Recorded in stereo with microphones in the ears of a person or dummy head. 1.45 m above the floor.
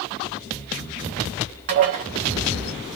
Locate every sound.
1.7 s dishes clattering: 35° right (ahead or behind), 0.7 m